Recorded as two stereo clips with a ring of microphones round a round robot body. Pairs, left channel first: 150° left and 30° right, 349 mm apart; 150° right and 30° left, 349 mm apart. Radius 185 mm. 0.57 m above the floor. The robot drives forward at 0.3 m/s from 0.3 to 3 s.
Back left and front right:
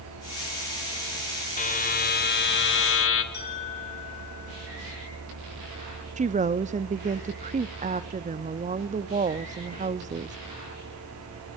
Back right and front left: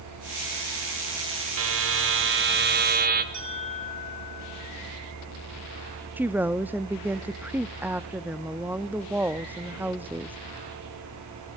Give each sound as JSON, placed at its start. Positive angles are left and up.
{"t": 1.6, "sound": "a buzzer", "azimuth_deg": 80, "distance_m": 1.8}
{"t": 3.3, "sound": "a bell", "azimuth_deg": 85, "distance_m": 6.5}
{"t": 6.2, "sound": "a woman speaking", "azimuth_deg": -45, "distance_m": 0.6}